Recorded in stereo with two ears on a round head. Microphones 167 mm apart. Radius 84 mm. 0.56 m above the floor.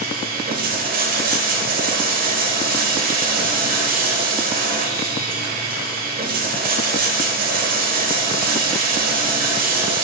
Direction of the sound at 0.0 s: 45° right (ahead or behind).